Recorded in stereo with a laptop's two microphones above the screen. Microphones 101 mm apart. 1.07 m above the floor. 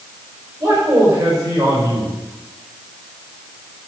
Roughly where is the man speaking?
Right.